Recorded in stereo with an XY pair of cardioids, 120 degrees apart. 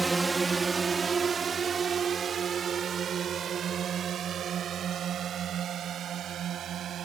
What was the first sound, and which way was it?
A drone, 15° right.